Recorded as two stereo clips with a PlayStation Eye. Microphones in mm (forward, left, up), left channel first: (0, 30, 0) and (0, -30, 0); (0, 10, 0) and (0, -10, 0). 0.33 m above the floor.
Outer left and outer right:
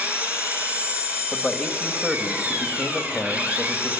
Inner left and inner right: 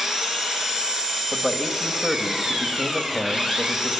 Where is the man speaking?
5° right (ahead or behind), 1.6 m.